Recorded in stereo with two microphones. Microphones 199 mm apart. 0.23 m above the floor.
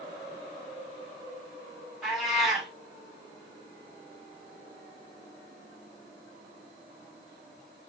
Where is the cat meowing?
Centre (ahead or behind), 3.5 m.